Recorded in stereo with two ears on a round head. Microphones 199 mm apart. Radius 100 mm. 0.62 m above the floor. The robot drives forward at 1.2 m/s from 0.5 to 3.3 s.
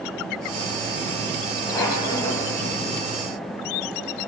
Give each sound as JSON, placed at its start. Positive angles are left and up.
{"t": 1.7, "sound": "a squeak", "side_deg": 15, "distance_m": 3.0}